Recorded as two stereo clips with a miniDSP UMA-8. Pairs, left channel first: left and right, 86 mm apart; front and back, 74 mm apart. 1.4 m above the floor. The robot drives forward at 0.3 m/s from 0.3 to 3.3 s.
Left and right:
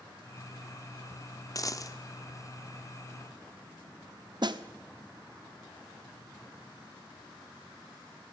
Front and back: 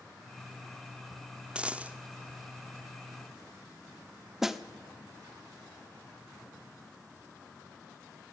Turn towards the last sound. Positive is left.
turn(degrees=-95)